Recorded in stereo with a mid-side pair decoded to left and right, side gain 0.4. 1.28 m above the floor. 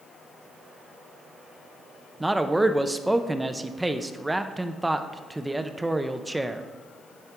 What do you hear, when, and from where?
2.2 s a man speaking: 15° right, 0.6 m